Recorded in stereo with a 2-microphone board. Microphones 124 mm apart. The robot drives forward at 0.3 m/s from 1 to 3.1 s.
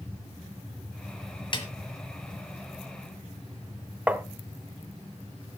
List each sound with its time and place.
1.5 s a snare drum: 40° left (ahead or behind), 1.4 m
4.1 s tapping: 10° right (ahead or behind), 0.7 m